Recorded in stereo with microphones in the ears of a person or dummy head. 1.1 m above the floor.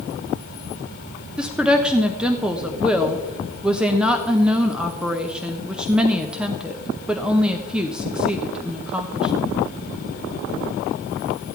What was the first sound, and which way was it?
A woman speaking, 5° right (ahead or behind).